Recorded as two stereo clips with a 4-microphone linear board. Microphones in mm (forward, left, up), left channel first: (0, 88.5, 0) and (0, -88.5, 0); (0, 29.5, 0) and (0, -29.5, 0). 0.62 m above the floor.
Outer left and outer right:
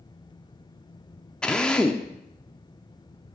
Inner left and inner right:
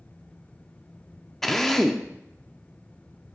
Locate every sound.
1.4 s a drill: 5° left (ahead or behind), 0.6 m